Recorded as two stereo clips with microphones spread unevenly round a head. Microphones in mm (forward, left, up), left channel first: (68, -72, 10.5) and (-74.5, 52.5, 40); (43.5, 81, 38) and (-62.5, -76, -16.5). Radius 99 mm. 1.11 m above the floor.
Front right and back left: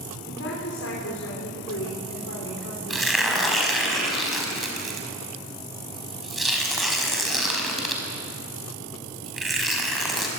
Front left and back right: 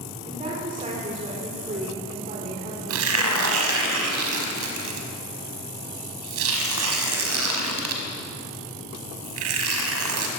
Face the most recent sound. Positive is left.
turn(degrees=-135)